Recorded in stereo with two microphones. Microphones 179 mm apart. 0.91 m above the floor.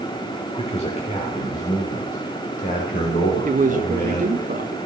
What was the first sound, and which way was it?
A man speaking, 35° left (ahead or behind).